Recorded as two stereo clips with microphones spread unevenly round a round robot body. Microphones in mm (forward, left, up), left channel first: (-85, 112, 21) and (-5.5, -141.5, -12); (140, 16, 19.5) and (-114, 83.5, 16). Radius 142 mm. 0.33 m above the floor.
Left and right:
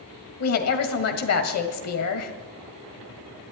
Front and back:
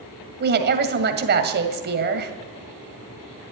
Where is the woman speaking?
125° left, 2.0 m.